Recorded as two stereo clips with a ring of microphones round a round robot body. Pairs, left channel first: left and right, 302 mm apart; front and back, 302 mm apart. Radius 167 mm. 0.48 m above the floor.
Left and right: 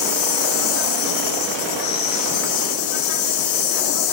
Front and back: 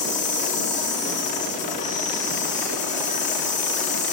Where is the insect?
65° left, 3.5 m.